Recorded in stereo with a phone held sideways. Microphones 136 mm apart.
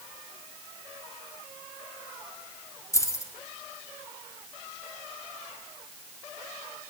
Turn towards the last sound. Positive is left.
turn(degrees=20)  # may be behind; listen again after turning